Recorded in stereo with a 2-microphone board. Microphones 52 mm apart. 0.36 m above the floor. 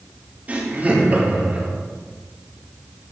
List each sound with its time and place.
0.5 s laughter: 30° right (ahead or behind), 7.5 m